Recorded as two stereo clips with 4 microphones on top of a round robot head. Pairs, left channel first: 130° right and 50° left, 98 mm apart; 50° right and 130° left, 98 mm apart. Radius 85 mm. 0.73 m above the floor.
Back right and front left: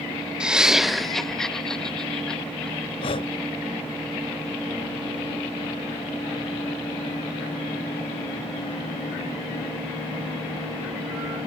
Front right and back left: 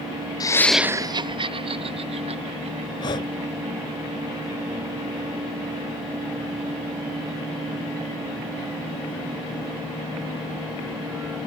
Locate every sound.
0.4 s laughter: 30° right; by 3.9 s 145° left
3.0 s breathing: 95° right